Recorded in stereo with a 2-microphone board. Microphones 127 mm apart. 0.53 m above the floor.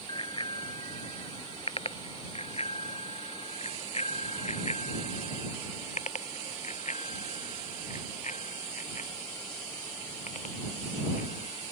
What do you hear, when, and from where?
0.1 s a bicycle bell: 40° left (ahead or behind); by 11.6 s 70° left (ahead or behind)